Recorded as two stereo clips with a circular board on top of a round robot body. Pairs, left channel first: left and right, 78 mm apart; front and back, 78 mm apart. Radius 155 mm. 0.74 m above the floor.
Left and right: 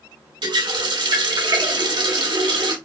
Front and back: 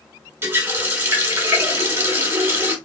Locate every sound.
0.4 s a running tap: 120° right, 1.8 m